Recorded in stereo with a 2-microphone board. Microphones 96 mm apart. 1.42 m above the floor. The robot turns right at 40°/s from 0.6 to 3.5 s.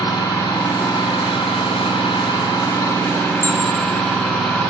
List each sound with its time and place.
0.0 s an engine running: 55° left, 3 m; by 4.7 s 170° left, 3 m
3.4 s an alarm: 25° right (ahead or behind), 1.4 m